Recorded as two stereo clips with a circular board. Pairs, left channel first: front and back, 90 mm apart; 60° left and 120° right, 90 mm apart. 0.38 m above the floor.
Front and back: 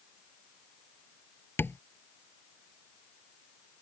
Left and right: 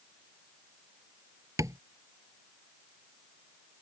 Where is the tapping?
65° right.